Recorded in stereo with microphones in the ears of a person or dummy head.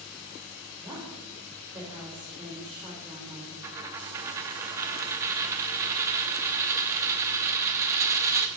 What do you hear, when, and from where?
0.8 s a woman speaking: 5° right (ahead or behind), 3.5 m
3.6 s a dropped coin: 20° right (ahead or behind), 0.8 m